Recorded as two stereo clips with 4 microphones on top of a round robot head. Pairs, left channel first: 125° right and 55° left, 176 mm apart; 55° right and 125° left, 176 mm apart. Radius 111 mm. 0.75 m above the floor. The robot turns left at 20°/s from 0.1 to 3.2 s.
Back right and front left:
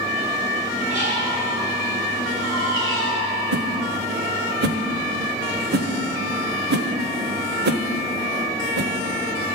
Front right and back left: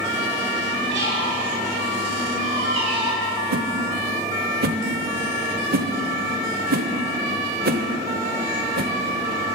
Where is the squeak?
105° left, 4 m; by 3.3 s 60° left, 4 m.